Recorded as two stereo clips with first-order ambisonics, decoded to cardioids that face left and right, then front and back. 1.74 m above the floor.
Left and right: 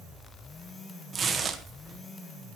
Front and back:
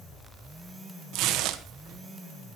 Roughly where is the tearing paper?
Behind right.